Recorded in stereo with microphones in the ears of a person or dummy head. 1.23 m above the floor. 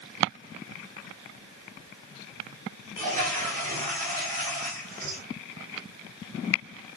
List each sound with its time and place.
3.0 s a toilet flushing: 40° right (ahead or behind), 3.5 m